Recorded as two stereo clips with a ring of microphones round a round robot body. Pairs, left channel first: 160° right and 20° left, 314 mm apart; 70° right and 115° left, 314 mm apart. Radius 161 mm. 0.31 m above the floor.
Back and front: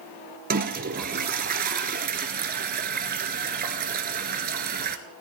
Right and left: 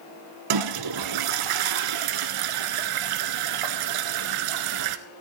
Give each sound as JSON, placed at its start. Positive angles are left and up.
{"t": 0.5, "sound": "a toilet flushing", "azimuth_deg": 85, "distance_m": 0.8}